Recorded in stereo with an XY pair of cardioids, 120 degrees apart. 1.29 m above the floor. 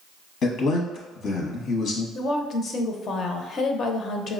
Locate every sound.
0.4 s a man speaking: 65° left, 0.8 m
2.1 s a woman speaking: 45° left, 0.5 m